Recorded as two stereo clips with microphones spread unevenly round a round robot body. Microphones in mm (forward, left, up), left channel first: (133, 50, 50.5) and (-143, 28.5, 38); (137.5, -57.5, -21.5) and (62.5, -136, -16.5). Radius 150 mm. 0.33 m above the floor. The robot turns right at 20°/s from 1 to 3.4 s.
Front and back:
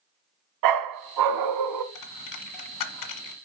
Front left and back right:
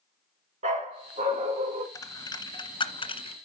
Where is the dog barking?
175° right, 1.0 m; by 1.9 s 155° right, 1.0 m.